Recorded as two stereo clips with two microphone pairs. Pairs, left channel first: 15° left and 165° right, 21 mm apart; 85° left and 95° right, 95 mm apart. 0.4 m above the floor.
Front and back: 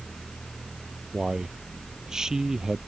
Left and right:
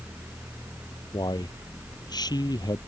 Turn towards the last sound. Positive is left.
turn(degrees=130)